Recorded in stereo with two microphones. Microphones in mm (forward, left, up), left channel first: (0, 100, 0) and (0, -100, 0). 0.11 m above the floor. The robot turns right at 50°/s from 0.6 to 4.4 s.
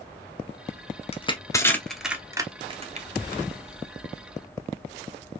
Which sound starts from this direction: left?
Crushing, at 1.1 s.